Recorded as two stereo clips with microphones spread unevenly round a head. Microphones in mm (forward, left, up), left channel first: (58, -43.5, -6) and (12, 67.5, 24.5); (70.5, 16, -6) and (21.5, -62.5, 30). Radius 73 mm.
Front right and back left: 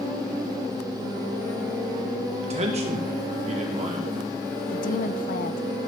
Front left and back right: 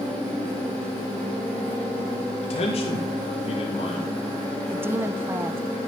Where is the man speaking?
80° left, 2.5 m.